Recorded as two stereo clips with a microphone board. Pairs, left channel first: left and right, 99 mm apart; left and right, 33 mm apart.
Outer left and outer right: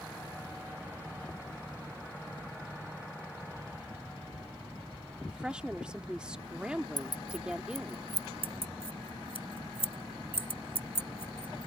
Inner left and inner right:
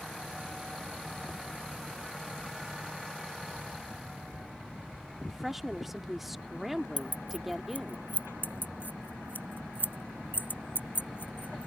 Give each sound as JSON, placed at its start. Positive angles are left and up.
{"t": 5.3, "sound": "a woman speaking", "side_deg": -10}
{"t": 7.0, "sound": "keys jangling", "side_deg": 45}
{"t": 8.4, "sound": "keys jangling", "side_deg": 70}